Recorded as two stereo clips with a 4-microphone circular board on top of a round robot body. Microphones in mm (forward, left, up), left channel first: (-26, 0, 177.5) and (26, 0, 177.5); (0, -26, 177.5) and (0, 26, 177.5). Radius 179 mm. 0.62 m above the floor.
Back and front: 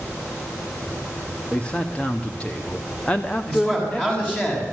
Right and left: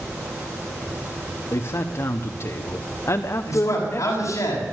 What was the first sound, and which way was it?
A man speaking, 110° right.